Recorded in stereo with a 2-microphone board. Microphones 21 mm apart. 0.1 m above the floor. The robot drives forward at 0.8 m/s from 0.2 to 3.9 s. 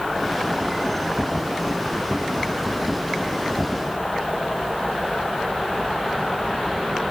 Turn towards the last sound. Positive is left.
No sound to turn to.